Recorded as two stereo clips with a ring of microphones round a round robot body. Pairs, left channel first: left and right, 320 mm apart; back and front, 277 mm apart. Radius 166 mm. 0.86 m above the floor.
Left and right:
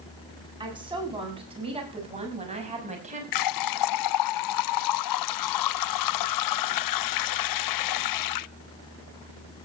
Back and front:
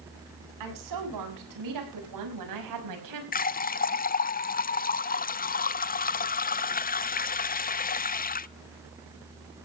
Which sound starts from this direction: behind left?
A running tap, at 3.3 s.